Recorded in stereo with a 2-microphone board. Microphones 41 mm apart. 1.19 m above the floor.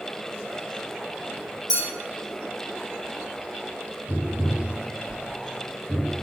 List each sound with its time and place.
1.7 s a clink: 20° right (ahead or behind), 1.1 m
4.1 s tapping: 65° left (ahead or behind), 1.0 m